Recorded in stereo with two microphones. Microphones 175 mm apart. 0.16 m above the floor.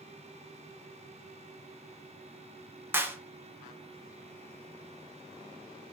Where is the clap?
15° right (ahead or behind), 0.9 m.